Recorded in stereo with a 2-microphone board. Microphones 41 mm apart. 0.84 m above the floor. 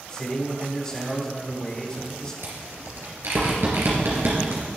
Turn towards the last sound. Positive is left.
turn(degrees=-75)  # may be behind; listen again after turning